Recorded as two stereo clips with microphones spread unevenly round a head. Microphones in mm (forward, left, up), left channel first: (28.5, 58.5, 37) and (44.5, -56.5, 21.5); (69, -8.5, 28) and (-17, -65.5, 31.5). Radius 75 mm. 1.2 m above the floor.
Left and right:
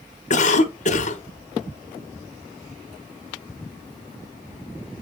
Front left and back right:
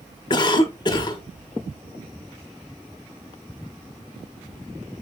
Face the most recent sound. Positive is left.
turn(degrees=85)